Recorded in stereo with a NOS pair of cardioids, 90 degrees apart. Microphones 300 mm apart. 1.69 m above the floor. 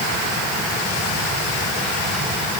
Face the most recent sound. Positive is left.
No sound to turn to.